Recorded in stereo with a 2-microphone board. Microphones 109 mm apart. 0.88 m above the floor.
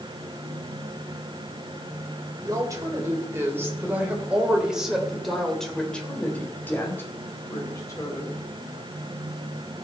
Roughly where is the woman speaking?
Right.